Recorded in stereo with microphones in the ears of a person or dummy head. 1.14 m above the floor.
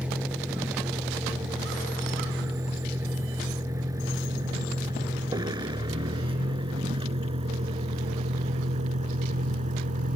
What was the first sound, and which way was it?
A vehicle, 10° right (ahead or behind).